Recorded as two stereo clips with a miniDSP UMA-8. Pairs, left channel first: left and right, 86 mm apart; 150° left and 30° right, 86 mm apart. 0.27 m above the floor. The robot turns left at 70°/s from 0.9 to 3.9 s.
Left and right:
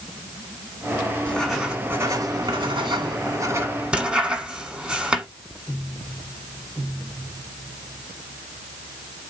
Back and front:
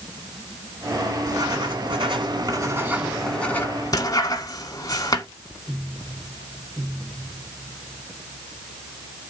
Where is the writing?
20° left, 1.4 m; by 5.3 s 165° right, 1.4 m.